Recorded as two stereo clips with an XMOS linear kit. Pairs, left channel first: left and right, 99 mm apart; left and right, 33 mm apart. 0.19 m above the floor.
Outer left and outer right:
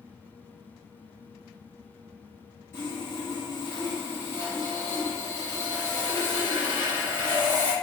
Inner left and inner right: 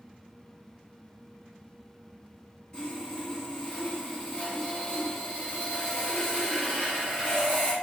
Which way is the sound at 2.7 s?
25° left (ahead or behind).